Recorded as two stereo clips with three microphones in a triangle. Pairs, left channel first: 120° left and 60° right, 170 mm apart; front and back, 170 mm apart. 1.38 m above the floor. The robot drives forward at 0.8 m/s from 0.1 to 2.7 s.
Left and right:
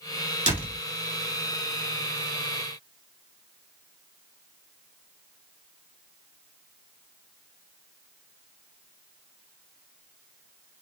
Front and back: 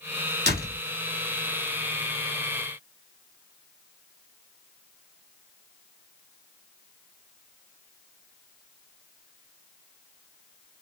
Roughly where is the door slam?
Behind.